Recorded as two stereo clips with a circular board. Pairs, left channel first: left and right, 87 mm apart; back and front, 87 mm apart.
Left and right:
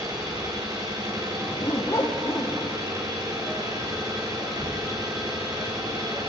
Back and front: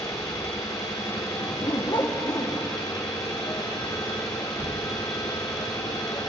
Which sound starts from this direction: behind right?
An engine running, at 0.0 s.